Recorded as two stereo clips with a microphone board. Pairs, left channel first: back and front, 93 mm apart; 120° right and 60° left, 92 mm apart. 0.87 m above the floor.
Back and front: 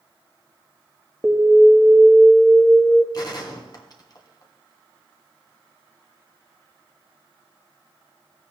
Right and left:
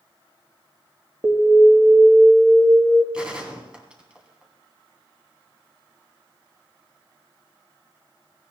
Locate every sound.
1.2 s an alarm: 105° left, 1.4 m
3.1 s a gunshot: 140° left, 1.8 m